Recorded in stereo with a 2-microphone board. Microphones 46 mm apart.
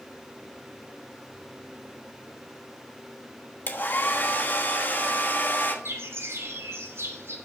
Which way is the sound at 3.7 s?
45° left (ahead or behind).